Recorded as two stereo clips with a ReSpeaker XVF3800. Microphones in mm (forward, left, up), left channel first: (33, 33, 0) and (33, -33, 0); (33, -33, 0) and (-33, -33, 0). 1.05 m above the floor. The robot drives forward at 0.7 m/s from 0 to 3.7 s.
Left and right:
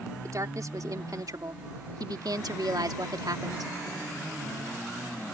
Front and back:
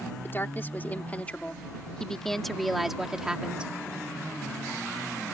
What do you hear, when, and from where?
0.2 s a woman speaking: 55° right; by 3.7 s 110° right